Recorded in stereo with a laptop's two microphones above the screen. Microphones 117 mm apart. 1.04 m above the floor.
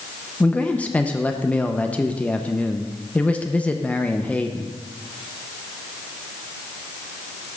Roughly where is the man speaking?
Centre.